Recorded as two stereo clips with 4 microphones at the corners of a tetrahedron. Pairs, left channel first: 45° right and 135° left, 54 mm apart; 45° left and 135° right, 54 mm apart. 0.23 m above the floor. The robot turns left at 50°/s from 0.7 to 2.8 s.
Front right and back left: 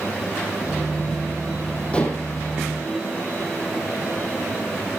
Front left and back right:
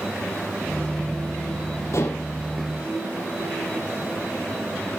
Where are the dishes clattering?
25° left, 4.5 m; by 2.3 s 5° left, 4.5 m.